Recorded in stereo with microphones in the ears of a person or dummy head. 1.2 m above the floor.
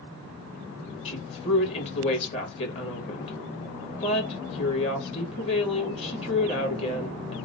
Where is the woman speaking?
30° left (ahead or behind), 1.3 m.